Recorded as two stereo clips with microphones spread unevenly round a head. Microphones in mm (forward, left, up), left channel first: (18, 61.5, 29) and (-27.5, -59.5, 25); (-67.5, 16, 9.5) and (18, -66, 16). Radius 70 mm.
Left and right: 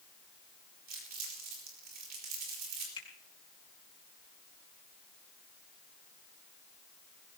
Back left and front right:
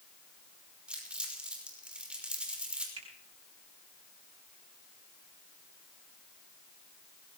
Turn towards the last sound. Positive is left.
turn(degrees=15)